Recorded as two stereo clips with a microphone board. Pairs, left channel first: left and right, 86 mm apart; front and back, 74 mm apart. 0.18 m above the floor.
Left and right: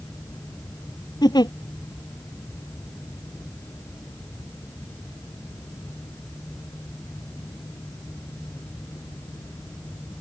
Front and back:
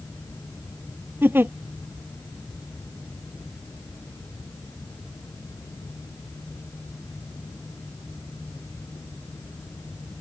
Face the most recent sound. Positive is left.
turn(degrees=120)